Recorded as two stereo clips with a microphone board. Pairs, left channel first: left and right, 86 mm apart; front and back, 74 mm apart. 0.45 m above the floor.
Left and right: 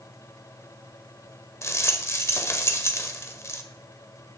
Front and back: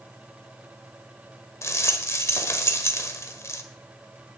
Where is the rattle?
40° left, 1.4 m.